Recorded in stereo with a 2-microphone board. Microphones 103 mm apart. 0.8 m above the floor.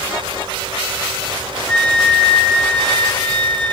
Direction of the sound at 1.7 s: 10° left (ahead or behind).